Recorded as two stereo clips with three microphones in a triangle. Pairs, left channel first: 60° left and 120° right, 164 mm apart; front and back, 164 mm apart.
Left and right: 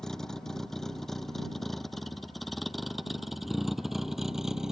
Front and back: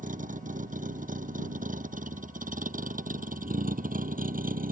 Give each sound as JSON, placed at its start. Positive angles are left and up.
{"t": 0.0, "sound": "a vehicle", "azimuth_deg": 145}